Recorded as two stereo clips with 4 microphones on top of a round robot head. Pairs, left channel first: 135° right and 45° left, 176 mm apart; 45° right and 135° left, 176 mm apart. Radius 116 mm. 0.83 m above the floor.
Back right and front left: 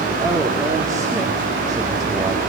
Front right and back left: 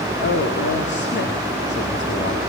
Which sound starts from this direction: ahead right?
A man speaking, at 0.2 s.